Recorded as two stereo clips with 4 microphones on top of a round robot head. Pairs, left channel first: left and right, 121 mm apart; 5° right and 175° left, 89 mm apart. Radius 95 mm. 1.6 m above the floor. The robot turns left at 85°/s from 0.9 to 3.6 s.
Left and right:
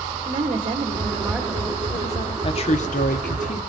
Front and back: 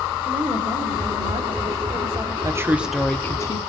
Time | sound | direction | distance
0.2 | a woman speaking | 135° right | 1.4 m
2.4 | a woman speaking | 130° left | 0.7 m